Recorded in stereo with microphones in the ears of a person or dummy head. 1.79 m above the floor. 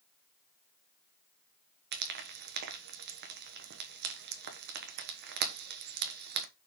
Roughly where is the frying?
Right.